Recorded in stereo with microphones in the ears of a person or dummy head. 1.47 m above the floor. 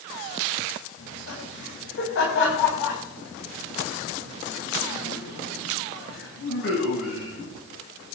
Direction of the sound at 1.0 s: 85° left.